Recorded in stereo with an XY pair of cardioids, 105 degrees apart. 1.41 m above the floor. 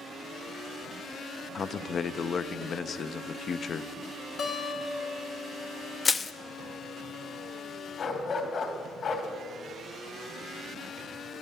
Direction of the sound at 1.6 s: 45° left.